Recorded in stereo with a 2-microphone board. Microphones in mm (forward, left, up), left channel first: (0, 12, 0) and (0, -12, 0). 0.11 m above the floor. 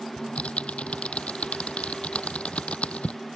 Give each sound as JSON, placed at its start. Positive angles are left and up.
{"t": 0.2, "sound": "typing on a keyboard", "side_deg": 60}